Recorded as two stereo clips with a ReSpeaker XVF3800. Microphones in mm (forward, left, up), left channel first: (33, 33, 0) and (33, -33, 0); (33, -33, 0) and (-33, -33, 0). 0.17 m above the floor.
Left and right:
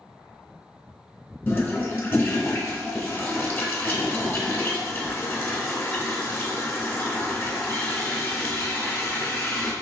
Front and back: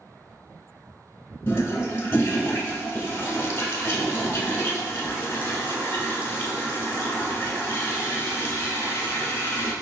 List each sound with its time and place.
1.5 s a toilet flushing: 45° left, 0.8 m